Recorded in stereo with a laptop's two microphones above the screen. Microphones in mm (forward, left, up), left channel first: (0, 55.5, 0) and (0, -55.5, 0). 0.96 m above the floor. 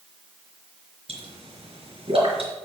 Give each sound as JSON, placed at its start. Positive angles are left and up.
{"t": 1.1, "sound": "a pop", "side_deg": -55, "distance_m": 4.0}